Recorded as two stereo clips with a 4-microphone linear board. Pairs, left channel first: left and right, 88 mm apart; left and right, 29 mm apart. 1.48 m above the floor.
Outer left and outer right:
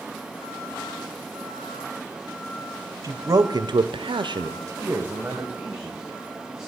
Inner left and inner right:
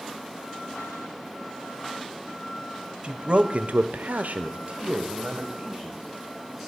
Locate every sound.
3.0 s a man speaking: 35° right (ahead or behind), 1.0 m; by 6.7 s 5° right (ahead or behind), 2 m